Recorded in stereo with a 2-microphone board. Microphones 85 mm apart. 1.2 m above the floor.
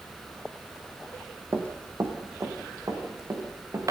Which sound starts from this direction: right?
Running footsteps, at 1.5 s.